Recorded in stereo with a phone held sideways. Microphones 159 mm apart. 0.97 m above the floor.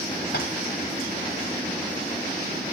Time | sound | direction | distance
0.3 | tapping | 80° left | 3.5 m